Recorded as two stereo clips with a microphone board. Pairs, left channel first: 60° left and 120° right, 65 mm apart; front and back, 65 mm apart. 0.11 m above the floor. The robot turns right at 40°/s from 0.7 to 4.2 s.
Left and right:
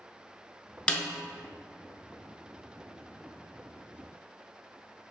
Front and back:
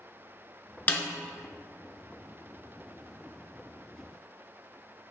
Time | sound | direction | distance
0.9 | a snare drum | 10° left | 0.5 m